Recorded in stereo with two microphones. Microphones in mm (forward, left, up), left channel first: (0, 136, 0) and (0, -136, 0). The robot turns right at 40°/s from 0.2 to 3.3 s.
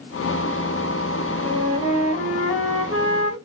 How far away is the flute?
About 0.7 m.